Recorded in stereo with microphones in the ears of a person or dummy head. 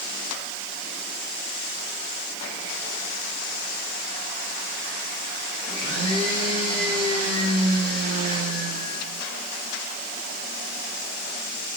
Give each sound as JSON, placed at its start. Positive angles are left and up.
{"t": 5.7, "sound": "a blender", "side_deg": -45, "distance_m": 9.0}